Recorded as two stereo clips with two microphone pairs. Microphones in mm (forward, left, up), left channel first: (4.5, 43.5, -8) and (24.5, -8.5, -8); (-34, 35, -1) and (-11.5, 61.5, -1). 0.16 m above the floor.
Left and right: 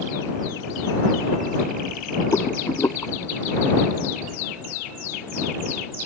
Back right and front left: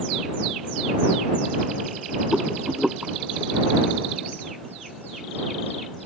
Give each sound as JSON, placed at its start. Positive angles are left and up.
{"t": 2.3, "sound": "a rattle", "azimuth_deg": 125}